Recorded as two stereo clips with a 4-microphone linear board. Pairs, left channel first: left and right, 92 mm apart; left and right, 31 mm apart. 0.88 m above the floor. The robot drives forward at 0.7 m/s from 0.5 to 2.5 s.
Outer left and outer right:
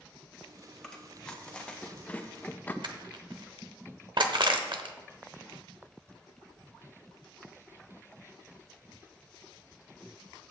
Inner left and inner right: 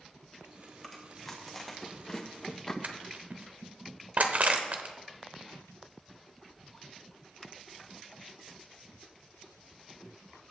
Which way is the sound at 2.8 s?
60° right (ahead or behind).